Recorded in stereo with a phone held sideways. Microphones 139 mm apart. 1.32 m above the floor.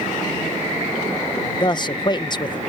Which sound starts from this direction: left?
A man speaking, at 1.6 s.